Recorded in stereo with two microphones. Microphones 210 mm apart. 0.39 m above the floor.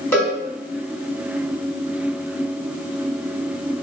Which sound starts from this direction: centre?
A cowbell, at 0.1 s.